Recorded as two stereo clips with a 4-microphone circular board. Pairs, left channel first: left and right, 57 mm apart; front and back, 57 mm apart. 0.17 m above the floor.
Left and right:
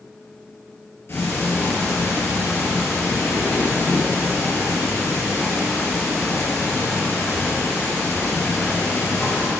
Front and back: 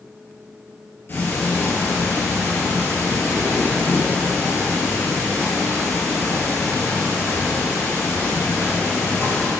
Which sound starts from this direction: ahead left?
Ticking, at 1.1 s.